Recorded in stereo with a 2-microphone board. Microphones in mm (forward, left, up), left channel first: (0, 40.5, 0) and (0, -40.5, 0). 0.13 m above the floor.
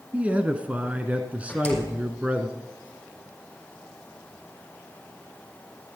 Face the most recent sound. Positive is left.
turn(degrees=15)  # may be behind; listen again after turning